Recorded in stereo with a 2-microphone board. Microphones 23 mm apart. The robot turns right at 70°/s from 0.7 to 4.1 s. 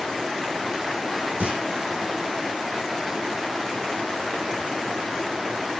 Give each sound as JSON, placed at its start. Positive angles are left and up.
{"t": 1.4, "sound": "a clunk", "side_deg": -70, "distance_m": 4.5}